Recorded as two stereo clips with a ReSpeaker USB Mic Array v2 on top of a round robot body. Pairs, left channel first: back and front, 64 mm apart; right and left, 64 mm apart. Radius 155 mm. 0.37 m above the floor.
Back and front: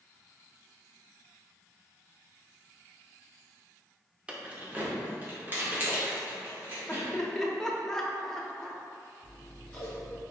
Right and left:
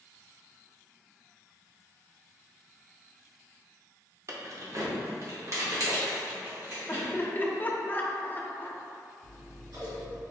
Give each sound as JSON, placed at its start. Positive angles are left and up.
{"t": 4.3, "sound": "keys jangling", "azimuth_deg": 70, "distance_m": 0.9}
{"t": 6.9, "sound": "laughter", "azimuth_deg": -105, "distance_m": 0.9}
{"t": 9.2, "sound": "scissors", "azimuth_deg": 105, "distance_m": 1.6}